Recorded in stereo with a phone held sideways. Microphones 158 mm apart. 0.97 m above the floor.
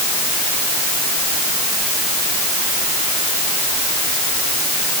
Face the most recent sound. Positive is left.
No sound to turn to.